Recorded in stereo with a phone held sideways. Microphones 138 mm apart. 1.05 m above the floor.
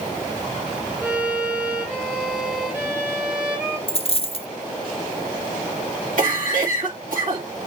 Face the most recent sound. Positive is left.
turn(degrees=-70)  # may be behind; listen again after turning